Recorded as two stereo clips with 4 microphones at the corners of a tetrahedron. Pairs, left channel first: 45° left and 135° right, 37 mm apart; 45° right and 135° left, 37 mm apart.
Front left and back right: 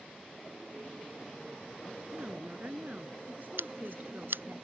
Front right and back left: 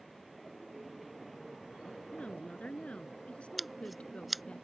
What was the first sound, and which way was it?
A woman speaking, 100° right.